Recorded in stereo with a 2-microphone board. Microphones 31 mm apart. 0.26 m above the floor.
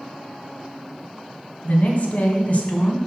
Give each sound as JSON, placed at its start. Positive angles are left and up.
{"t": 1.6, "sound": "a woman speaking", "side_deg": 55, "distance_m": 2.0}